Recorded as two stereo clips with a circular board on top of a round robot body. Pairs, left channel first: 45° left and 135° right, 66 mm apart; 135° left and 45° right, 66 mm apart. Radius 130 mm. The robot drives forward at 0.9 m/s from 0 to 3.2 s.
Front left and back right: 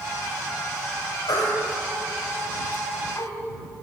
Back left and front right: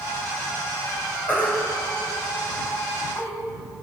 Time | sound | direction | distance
1.3 | a baby crying | 70° left | 3.5 m